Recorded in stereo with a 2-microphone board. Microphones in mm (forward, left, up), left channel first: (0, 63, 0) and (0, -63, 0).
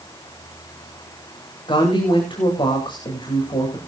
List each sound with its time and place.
1.7 s a woman speaking: 40° left (ahead or behind), 8.5 m